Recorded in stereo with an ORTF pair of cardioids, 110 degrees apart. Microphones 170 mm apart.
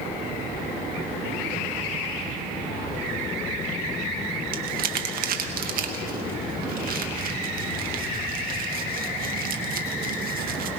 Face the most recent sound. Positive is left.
turn(degrees=-60)